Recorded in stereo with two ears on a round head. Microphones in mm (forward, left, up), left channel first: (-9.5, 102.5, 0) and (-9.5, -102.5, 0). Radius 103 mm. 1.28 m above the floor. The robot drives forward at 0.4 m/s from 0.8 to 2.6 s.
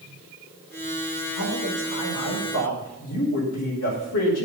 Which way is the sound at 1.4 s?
85° left.